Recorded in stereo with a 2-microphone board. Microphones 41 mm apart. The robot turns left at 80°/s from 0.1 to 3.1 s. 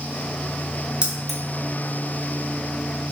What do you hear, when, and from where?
1.0 s keys jangling: 25° right (ahead or behind), 0.8 m; by 1.4 s 10° left (ahead or behind), 0.8 m